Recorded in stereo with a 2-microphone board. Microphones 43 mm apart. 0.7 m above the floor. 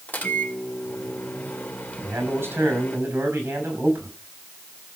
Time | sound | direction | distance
0.1 | a microwave | 40° left (ahead or behind) | 2 m
2.0 | a man speaking | 60° right (ahead or behind) | 6 m